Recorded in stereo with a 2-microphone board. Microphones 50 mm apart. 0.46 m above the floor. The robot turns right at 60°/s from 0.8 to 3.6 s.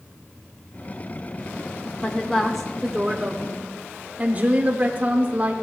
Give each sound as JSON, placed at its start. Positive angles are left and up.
{"t": 2.0, "sound": "a woman speaking", "azimuth_deg": 150, "distance_m": 0.8}